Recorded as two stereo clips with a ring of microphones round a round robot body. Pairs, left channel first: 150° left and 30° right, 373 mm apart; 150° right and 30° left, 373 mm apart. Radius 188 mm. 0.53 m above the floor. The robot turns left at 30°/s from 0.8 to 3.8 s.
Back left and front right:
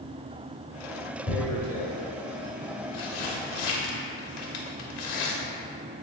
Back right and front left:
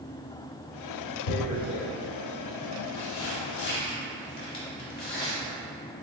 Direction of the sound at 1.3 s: 140° right.